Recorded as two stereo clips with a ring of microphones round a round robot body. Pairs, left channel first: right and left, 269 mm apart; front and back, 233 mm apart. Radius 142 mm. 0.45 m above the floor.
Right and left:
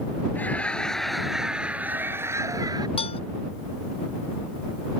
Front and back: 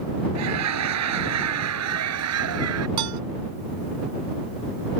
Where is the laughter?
175° right; by 2.9 s 165° left.